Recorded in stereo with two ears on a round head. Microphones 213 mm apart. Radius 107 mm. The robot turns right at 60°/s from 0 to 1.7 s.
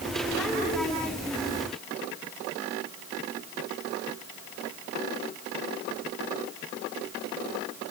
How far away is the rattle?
I don't hear a rattle.